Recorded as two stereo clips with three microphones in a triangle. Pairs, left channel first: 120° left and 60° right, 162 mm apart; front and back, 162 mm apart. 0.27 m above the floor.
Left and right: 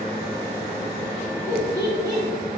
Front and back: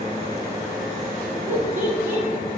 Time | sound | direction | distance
1.5 | laughter | 115° right | 1.2 m